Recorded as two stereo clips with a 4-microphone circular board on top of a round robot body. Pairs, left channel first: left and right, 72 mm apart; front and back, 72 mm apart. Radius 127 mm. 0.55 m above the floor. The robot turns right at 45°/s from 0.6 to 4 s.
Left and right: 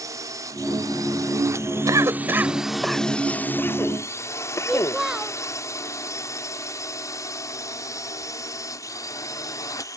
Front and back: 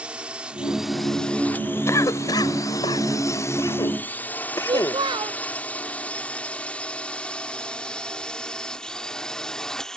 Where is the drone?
110° right; by 10.0 s 80° left.